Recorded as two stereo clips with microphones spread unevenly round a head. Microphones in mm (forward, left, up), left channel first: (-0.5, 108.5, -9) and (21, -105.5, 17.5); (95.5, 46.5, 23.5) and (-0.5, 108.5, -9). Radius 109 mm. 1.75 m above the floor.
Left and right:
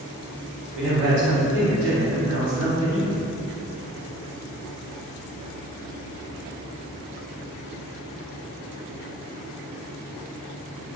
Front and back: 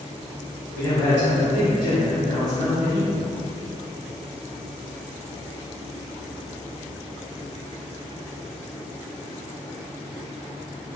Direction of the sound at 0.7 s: 85° right.